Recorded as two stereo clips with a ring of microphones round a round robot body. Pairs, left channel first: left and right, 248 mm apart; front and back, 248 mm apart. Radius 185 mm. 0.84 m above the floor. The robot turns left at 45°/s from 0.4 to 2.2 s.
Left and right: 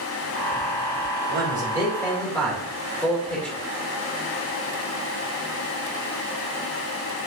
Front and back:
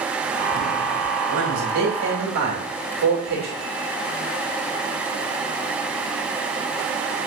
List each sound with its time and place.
1.3 s a man speaking: 145° right, 2.5 m; by 3.6 s 175° left, 2.5 m